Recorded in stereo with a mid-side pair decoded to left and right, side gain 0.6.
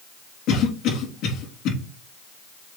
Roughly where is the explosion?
I don't hear an explosion.